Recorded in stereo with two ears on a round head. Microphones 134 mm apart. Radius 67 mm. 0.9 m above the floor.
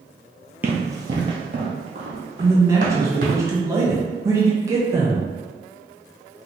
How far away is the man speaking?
About 0.7 m.